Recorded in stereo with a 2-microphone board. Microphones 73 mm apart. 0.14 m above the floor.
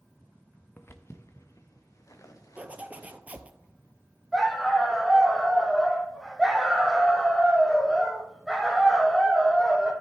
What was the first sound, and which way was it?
Footsteps, 35° left (ahead or behind).